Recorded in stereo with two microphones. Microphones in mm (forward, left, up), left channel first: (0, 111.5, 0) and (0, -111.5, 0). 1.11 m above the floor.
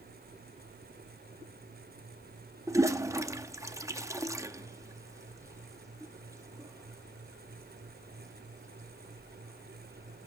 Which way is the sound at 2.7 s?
15° right (ahead or behind).